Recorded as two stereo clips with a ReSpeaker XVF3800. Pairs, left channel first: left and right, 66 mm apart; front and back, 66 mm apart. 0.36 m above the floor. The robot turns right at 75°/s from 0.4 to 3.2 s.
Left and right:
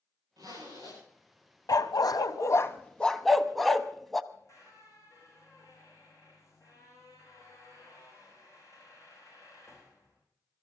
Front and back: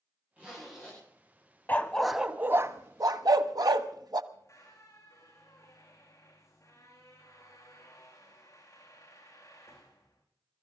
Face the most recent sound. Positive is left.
turn(degrees=45)